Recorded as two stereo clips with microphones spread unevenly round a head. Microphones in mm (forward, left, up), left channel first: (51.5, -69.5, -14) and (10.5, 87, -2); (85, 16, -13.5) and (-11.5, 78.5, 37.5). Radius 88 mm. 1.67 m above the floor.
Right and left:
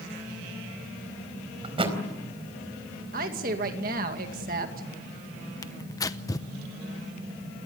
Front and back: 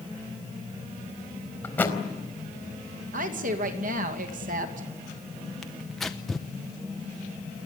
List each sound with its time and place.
1.6 s a thud: 50° left, 4 m
3.1 s a woman speaking: 150° left, 2.5 m
5.6 s tearing paper: 145° right, 0.8 m